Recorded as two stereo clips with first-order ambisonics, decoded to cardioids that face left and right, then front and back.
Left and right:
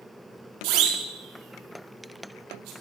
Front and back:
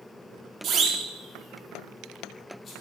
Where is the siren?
120° right, 2.5 m; by 2.7 s 65° right, 4 m.